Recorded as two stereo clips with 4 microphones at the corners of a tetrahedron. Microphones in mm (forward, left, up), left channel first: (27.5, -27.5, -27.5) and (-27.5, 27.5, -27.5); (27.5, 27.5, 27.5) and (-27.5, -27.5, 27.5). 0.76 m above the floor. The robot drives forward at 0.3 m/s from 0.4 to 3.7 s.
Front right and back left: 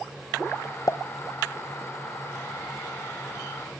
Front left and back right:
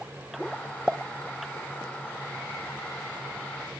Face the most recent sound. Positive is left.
turn(degrees=-150)